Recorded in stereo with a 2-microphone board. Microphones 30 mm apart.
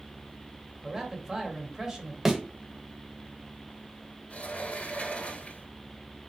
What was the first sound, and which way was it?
A man speaking, 20° right (ahead or behind).